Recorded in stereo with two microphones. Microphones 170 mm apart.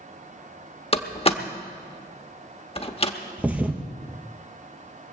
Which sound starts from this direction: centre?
A thud, at 3.4 s.